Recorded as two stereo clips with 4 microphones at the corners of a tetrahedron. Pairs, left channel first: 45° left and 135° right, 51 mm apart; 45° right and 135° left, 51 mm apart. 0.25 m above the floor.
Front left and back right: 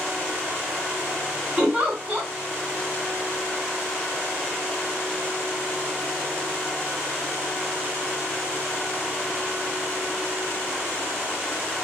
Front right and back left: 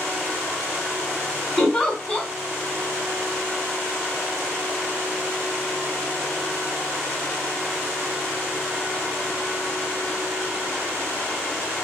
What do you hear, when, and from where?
1.6 s a giggle: 105° right, 1.5 m